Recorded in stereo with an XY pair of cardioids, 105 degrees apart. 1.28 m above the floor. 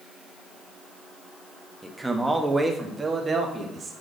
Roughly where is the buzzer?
I don't hear a buzzer.